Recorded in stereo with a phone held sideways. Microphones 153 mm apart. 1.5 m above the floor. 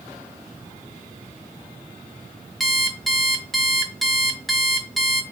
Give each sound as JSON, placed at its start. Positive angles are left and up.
{"t": 2.6, "sound": "an alarm clock", "side_deg": 0, "distance_m": 1.2}